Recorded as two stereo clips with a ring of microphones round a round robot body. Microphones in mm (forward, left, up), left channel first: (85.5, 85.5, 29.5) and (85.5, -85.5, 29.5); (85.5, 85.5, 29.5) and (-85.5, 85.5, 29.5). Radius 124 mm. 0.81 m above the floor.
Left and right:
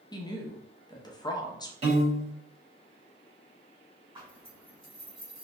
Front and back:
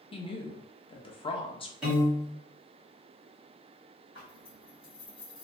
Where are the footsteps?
I don't hear footsteps.